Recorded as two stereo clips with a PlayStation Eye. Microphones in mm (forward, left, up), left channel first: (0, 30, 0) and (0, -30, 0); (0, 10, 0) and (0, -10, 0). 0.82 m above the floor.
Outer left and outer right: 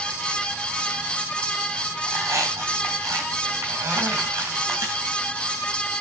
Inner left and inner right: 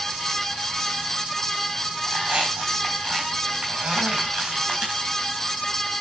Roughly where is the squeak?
Right.